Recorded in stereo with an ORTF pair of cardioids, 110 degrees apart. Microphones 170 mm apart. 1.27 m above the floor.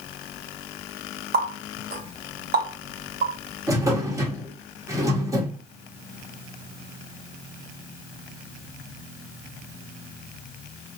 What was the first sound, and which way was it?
A running tap, 55° right.